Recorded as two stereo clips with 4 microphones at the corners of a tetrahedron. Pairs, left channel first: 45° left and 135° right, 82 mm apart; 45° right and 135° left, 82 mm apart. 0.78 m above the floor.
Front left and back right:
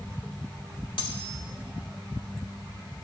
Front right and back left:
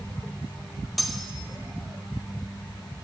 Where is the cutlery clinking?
45° left, 1.7 m.